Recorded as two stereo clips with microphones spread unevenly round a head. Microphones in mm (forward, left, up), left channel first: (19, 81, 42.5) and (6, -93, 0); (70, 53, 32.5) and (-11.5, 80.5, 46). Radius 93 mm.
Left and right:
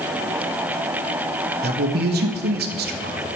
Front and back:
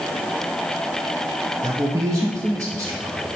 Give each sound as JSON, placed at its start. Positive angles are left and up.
{"t": 1.6, "sound": "a man speaking", "azimuth_deg": -130, "distance_m": 0.8}